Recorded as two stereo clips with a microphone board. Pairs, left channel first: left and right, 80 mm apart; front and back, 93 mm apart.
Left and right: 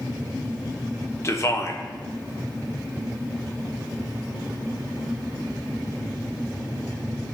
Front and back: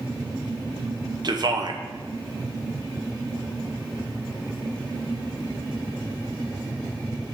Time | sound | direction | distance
1.2 | a man speaking | 140° left | 0.9 m